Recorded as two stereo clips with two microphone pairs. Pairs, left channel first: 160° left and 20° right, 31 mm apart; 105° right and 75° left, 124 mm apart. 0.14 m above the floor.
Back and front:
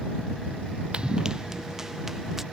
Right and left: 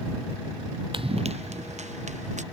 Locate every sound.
0.9 s running footsteps: 30° left; by 2.4 s 55° left